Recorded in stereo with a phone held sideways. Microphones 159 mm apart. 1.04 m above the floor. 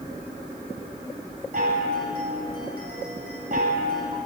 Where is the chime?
65° right (ahead or behind), 1.8 m.